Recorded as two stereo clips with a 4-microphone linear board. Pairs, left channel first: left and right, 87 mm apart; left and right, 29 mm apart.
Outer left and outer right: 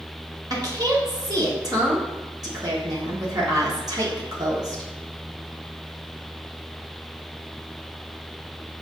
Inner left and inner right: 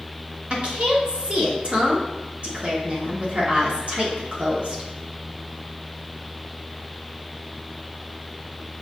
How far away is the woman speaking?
About 1.2 m.